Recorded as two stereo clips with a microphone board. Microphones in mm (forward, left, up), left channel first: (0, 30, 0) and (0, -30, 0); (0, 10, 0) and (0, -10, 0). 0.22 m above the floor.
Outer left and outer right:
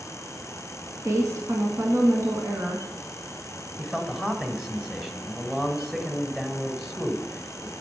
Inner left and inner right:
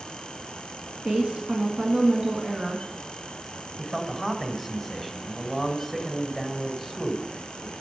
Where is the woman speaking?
55° right (ahead or behind), 1.9 m.